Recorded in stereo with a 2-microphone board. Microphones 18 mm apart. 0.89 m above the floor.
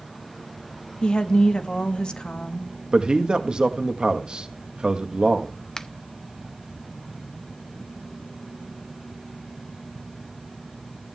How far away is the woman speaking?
About 1.4 m.